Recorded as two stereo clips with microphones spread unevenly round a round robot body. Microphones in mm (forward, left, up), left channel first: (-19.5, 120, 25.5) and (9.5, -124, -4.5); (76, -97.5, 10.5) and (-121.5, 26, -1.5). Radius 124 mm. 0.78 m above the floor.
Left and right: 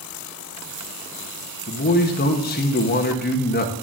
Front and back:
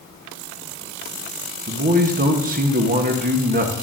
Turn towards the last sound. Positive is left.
turn(degrees=135)